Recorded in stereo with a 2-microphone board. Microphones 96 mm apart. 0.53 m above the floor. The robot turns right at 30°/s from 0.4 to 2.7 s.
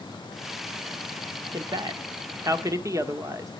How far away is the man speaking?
About 1.2 m.